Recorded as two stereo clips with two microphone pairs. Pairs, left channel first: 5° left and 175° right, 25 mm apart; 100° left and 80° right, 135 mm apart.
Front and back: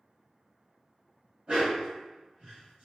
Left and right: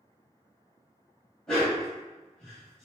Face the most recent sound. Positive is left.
turn(degrees=-175)